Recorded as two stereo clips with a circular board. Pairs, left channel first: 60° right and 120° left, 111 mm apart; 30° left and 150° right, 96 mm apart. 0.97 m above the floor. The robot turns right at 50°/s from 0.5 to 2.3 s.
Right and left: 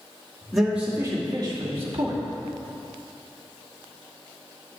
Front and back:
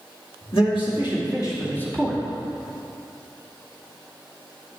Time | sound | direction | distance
0.5 | a man speaking | 30° left | 2 m